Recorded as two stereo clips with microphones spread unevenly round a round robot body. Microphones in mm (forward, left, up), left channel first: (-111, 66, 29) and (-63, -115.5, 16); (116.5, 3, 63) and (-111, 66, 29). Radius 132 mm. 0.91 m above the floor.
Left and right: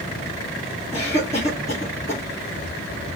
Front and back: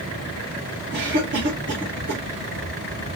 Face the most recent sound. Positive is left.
turn(degrees=155)